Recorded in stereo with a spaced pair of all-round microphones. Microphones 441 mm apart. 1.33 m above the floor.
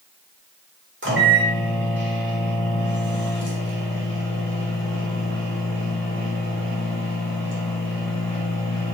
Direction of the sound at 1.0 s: 25° right (ahead or behind).